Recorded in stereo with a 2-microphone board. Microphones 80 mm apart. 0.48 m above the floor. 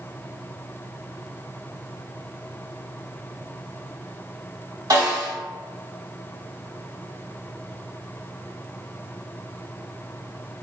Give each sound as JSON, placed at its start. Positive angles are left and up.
{"t": 4.9, "sound": "a snare drum", "side_deg": -55, "distance_m": 2.0}